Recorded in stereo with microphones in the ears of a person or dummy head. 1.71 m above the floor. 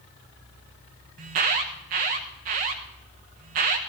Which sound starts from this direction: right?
An alarm, at 1.2 s.